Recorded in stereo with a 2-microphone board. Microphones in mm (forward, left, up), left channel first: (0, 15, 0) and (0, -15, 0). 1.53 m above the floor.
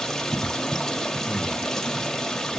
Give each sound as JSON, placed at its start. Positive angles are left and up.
{"t": 0.0, "sound": "running water", "side_deg": 15, "distance_m": 1.6}
{"t": 1.3, "sound": "breathing", "side_deg": -55, "distance_m": 4.5}